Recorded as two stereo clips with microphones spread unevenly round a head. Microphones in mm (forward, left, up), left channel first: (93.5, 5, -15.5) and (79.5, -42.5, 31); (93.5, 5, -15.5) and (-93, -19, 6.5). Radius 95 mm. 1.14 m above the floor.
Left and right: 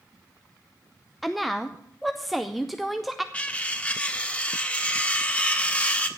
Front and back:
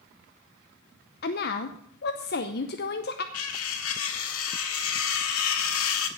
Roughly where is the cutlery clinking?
Ahead.